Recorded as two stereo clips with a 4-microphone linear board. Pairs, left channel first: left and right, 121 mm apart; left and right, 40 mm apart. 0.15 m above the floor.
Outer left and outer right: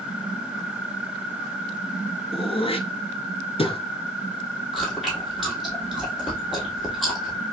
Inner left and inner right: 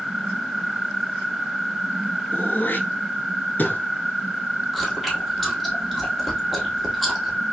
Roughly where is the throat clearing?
Left.